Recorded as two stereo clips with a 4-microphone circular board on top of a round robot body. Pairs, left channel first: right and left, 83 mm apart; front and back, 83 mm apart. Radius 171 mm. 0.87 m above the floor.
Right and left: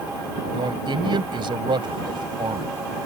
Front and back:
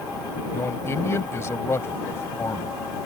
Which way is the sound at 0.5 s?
60° left.